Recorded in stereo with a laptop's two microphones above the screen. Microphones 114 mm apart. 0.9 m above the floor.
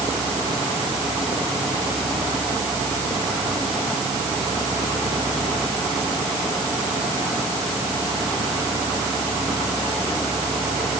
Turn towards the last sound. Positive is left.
No sound to turn to.